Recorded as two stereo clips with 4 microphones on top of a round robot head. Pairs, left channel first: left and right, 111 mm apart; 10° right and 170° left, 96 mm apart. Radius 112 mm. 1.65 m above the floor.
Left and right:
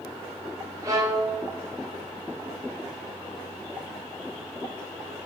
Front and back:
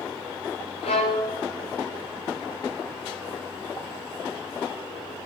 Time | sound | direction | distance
0.8 | a violin | 25° right | 0.9 m